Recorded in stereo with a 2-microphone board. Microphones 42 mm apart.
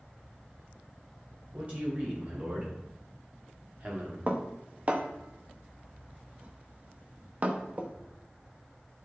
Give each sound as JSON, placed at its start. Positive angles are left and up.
{"t": 1.5, "sound": "a man speaking", "side_deg": -35, "distance_m": 3.5}
{"t": 4.3, "sound": "dishes clattering", "side_deg": -35, "distance_m": 1.0}